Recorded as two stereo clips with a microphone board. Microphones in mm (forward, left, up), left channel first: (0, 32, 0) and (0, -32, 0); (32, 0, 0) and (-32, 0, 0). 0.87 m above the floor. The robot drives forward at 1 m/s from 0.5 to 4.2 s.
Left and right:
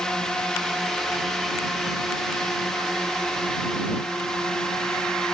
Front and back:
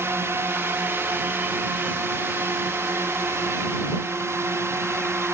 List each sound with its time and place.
0.0 s a drone: 165° left